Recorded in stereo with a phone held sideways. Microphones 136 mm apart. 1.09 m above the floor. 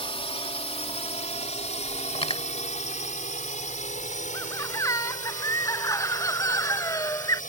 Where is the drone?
45° left (ahead or behind); by 7.5 s 80° left.